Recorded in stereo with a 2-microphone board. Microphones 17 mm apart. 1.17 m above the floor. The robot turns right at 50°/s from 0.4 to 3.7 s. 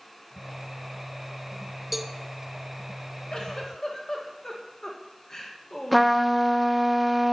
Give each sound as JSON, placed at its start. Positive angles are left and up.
{"t": 1.9, "sound": "a cowbell", "side_deg": -10, "distance_m": 0.5}
{"t": 3.3, "sound": "a giggle", "side_deg": 45, "distance_m": 1.6}
{"t": 5.9, "sound": "a trumpet", "side_deg": -5, "distance_m": 0.8}